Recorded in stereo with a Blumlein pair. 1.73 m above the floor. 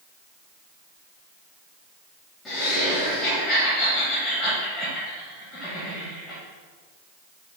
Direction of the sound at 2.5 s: 20° left.